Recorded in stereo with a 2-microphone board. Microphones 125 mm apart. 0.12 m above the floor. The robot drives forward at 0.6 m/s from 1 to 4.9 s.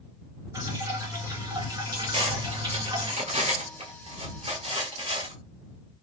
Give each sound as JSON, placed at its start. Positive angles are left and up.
{"t": 0.5, "sound": "dripping", "side_deg": -30, "distance_m": 2.0}
{"t": 2.1, "sound": "cutlery clinking", "side_deg": -45, "distance_m": 1.7}